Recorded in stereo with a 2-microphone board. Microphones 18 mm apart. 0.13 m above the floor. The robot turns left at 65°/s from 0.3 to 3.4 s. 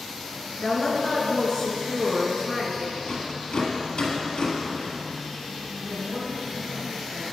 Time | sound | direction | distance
0.6 | a woman speaking | 115° left | 1.6 m
3.0 | a rattle | 65° left (ahead or behind) | 2 m
5.8 | a man speaking | 40° right (ahead or behind) | 2.5 m